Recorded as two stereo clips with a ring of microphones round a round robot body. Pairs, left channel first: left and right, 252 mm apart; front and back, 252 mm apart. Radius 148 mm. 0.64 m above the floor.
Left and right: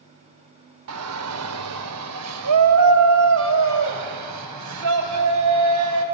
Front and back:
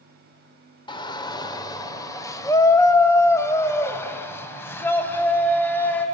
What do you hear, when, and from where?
0.9 s a shout: 70° right, 2.0 m; by 6.0 s 80° right, 4.5 m